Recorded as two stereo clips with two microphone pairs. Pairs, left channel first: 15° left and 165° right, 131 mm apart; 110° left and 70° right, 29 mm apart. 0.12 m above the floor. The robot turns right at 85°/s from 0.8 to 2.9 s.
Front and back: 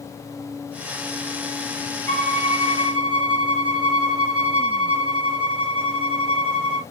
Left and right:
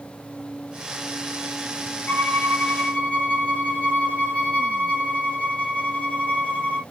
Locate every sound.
2.1 s a violin: 75° left, 2 m; by 6.8 s 145° left, 2 m